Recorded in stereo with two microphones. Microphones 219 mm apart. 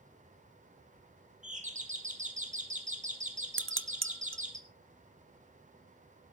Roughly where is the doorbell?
Right.